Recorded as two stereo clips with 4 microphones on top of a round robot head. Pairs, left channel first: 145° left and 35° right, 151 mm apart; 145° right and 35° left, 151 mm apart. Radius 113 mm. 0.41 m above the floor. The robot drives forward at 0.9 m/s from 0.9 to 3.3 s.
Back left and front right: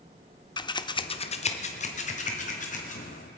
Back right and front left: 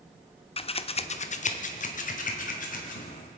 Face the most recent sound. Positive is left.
turn(degrees=180)